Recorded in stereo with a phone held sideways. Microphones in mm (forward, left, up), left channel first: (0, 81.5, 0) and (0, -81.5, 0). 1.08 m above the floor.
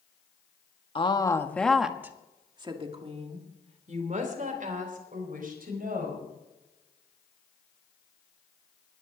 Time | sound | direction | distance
0.9 | a woman speaking | 35° left (ahead or behind) | 1.5 m